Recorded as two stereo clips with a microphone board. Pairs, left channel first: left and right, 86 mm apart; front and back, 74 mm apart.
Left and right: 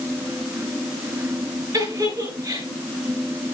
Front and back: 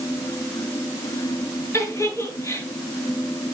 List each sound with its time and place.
1.7 s a giggle: 50° right, 7 m